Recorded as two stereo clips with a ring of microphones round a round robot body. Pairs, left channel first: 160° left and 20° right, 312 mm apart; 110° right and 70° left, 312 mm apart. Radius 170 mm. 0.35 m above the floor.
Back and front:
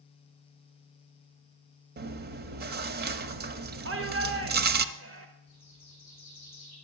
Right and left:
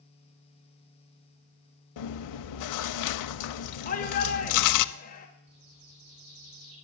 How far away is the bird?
About 9 m.